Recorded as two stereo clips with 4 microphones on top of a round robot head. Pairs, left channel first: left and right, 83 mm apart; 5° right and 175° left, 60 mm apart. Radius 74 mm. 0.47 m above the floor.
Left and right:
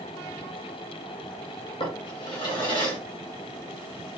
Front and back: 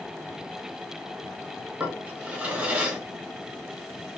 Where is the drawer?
110° left, 1.6 m.